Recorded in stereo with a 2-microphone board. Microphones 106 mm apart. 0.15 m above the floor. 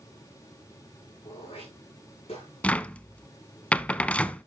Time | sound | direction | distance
1.2 | throat clearing | 65° left (ahead or behind) | 9.5 m
2.6 | a cupboard door | 15° left (ahead or behind) | 0.5 m